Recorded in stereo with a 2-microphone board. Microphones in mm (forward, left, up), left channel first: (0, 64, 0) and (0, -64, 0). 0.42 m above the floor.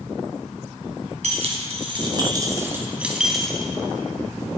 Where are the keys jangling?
60° right (ahead or behind), 2 m; by 3.7 s 5° left (ahead or behind), 2.5 m.